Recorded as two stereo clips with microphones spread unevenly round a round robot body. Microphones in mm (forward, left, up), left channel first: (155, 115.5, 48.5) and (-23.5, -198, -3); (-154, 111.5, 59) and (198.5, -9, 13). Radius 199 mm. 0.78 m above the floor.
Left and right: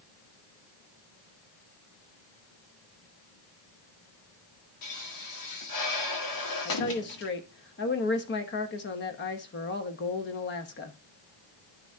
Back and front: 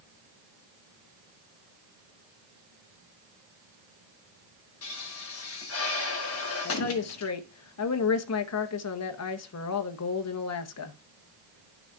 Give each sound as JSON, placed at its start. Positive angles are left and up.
{"t": 4.8, "sound": "a pop", "azimuth_deg": 105, "distance_m": 1.8}
{"t": 6.7, "sound": "a woman speaking", "azimuth_deg": 120, "distance_m": 1.0}